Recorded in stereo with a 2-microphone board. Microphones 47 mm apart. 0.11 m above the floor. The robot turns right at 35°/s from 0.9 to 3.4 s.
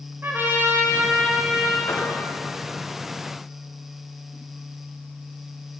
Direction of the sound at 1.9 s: 60° left (ahead or behind).